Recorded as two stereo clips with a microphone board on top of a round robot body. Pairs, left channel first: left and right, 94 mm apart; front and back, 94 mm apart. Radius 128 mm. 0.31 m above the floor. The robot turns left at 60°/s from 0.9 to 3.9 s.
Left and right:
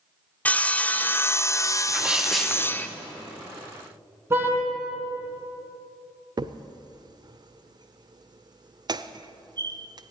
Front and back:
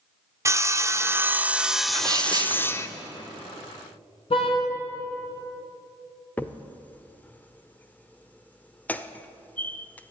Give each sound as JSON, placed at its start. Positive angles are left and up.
{"t": 0.5, "sound": "sawing", "azimuth_deg": 150, "distance_m": 0.8}
{"t": 1.9, "sound": "a sneeze", "azimuth_deg": -150, "distance_m": 1.6}
{"t": 4.3, "sound": "a car horn", "azimuth_deg": -25, "distance_m": 3.0}
{"t": 6.4, "sound": "a crack", "azimuth_deg": -70, "distance_m": 0.7}